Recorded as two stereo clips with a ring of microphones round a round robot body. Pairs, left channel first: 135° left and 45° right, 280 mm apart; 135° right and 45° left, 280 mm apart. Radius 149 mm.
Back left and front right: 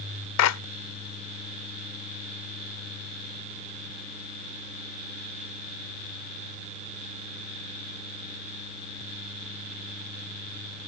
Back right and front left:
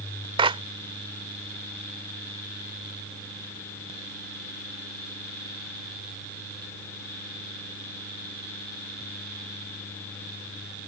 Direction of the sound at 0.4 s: 115° left.